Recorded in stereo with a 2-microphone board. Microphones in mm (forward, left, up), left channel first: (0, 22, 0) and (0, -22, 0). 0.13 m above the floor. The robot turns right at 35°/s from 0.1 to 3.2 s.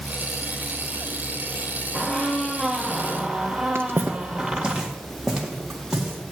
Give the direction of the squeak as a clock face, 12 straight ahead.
7 o'clock.